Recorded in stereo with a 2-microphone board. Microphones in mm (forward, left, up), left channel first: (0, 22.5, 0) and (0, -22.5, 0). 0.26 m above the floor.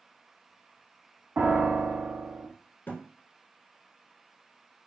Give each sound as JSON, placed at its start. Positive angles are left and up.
{"t": 1.4, "sound": "a piano", "side_deg": -50, "distance_m": 0.7}
{"t": 2.9, "sound": "a thud", "side_deg": 50, "distance_m": 0.8}